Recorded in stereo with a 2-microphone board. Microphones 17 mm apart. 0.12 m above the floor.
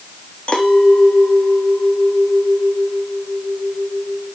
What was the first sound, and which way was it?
A clink, 60° left (ahead or behind).